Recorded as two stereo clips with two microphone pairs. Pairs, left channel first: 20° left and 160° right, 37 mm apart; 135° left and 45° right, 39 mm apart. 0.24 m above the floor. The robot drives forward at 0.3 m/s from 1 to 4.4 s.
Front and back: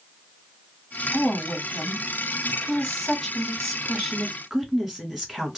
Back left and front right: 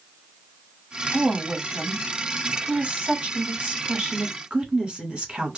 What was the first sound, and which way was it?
A woman speaking, 40° right.